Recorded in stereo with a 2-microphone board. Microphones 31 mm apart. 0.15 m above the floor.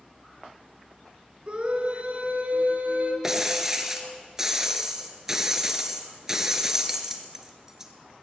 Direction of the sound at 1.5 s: 35° right (ahead or behind).